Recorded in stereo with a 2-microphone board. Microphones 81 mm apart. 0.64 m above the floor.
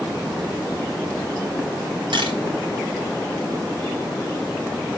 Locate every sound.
2.1 s a camera shutter: 80° right, 4 m